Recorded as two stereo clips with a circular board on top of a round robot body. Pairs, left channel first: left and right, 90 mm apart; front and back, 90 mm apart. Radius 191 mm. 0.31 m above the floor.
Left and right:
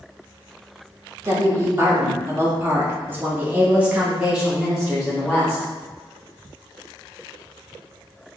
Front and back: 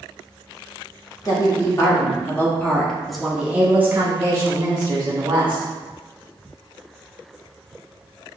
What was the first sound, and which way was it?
A woman speaking, 40° right.